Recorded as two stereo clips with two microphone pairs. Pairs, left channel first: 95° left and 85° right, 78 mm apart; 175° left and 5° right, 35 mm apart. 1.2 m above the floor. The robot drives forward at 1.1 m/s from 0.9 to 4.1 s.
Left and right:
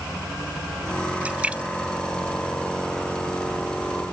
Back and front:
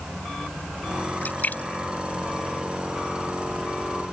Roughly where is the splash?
Behind right.